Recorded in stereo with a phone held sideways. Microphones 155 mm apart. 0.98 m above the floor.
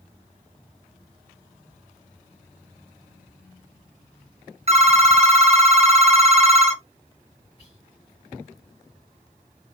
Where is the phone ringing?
40° right (ahead or behind), 1.0 m.